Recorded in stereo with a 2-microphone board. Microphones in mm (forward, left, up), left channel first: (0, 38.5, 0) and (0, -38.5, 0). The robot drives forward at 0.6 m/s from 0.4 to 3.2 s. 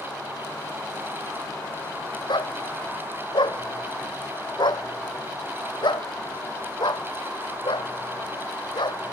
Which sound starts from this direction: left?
A dog barking, at 2.3 s.